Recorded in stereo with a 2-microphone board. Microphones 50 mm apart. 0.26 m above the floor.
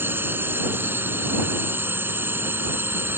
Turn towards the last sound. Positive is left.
turn(degrees=-50)  # may be behind; listen again after turning